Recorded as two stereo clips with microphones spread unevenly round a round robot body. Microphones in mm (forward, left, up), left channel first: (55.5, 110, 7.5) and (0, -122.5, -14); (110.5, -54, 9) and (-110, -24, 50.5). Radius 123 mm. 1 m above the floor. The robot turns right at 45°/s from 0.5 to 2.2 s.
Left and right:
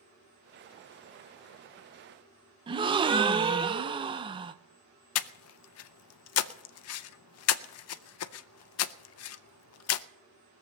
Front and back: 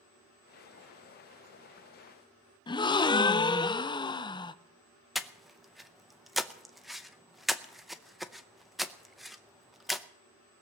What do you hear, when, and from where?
2.7 s a gasp: 50° right, 0.6 m
5.2 s breathing: 75° left, 0.5 m